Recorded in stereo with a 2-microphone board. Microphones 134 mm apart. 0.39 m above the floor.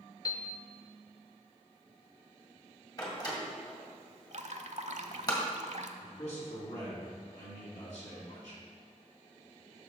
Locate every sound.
0.2 s a piano: 30° left (ahead or behind), 0.8 m
3.0 s a door slam: 30° left (ahead or behind), 1.8 m
4.3 s dripping: 65° right (ahead or behind), 0.6 m
6.0 s a man speaking: 60° left (ahead or behind), 3 m